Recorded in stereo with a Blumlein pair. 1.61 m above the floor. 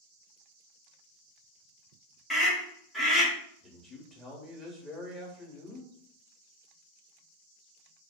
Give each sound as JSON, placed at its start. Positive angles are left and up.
{"t": 2.3, "sound": "a scream", "azimuth_deg": 15, "distance_m": 1.3}
{"t": 3.6, "sound": "a man speaking", "azimuth_deg": 10, "distance_m": 1.1}